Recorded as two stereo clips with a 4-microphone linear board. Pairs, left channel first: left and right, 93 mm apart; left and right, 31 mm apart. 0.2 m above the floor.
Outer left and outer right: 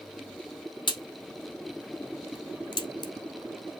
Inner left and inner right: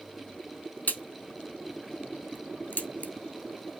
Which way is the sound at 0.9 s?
50° left (ahead or behind).